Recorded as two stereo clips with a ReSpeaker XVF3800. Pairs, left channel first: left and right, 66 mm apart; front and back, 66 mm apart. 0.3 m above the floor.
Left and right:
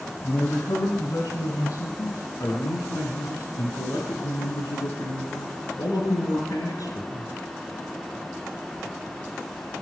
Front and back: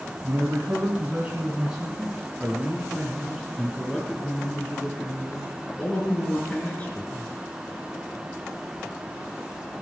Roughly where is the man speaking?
Behind left.